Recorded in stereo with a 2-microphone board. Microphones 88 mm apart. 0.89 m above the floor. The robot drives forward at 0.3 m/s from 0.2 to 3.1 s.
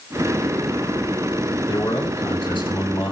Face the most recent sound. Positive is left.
turn(degrees=80)